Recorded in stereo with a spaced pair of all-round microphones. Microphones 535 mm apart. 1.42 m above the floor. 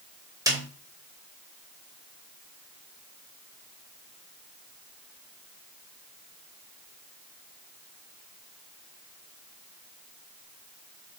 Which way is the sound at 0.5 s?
5° right (ahead or behind).